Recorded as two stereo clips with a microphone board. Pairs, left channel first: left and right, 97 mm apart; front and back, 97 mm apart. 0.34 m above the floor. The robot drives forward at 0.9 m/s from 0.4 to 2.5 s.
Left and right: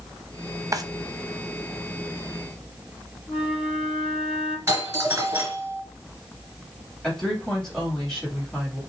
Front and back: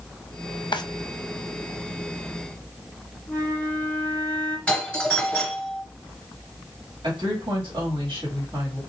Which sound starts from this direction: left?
A flute, at 3.3 s.